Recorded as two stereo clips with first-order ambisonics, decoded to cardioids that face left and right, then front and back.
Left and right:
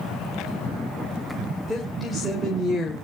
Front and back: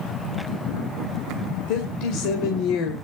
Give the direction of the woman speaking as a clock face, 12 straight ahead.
12 o'clock.